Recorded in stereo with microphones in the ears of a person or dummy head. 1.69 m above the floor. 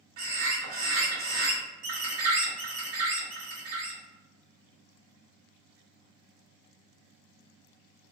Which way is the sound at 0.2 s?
80° right.